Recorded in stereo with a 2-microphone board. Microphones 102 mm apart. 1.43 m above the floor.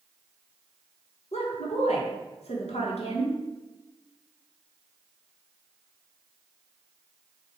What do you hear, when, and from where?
1.3 s a woman speaking: 85° left, 1.6 m